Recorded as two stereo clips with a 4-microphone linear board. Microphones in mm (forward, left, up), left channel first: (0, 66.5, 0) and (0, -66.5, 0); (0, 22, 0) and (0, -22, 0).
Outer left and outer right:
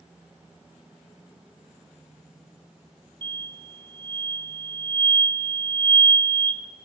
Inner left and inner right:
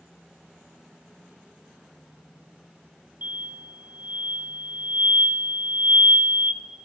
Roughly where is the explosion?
Right.